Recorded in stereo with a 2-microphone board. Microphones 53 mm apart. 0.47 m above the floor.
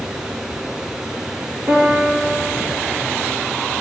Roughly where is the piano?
Right.